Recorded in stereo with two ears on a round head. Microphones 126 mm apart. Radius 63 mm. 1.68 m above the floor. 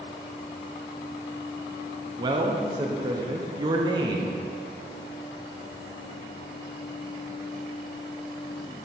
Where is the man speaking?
30° right (ahead or behind), 0.9 m.